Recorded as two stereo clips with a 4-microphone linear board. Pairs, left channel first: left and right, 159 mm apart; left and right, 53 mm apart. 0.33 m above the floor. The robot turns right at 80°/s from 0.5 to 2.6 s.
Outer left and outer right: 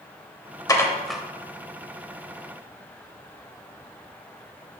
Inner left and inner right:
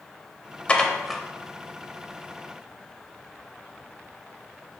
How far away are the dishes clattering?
About 0.7 m.